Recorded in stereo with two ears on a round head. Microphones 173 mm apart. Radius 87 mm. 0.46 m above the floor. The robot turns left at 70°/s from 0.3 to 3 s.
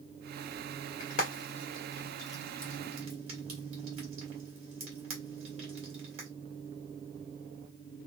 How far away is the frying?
About 1.8 m.